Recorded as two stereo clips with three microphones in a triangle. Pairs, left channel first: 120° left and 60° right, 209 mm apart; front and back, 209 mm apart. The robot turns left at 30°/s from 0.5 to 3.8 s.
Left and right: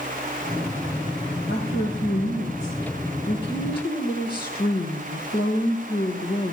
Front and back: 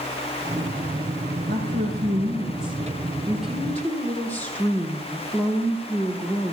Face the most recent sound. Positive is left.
turn(degrees=80)